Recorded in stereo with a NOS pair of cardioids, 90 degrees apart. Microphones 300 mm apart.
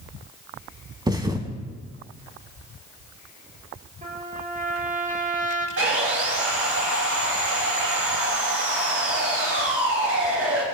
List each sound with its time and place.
1.1 s a thud: 15° right, 3.5 m
4.0 s a trumpet: 25° right, 7.5 m
5.8 s sawing: 50° right, 10 m